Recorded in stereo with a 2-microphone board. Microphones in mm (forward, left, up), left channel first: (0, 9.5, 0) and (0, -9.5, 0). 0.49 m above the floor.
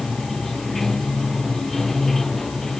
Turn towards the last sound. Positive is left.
turn(degrees=20)  # may be behind; listen again after turning